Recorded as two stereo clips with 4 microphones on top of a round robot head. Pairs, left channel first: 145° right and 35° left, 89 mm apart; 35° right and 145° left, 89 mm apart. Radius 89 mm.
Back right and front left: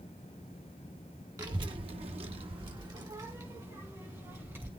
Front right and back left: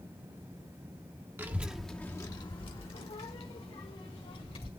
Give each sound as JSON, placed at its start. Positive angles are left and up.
{"t": 1.4, "sound": "a child speaking", "azimuth_deg": 80, "distance_m": 1.1}